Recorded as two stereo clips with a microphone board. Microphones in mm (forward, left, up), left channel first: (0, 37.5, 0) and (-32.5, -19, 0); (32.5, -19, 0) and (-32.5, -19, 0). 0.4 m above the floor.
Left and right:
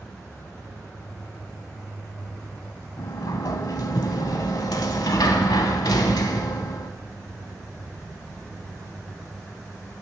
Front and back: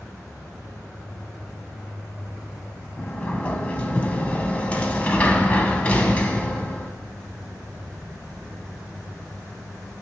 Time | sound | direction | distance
3.0 | a sliding door | 70° left | 0.7 m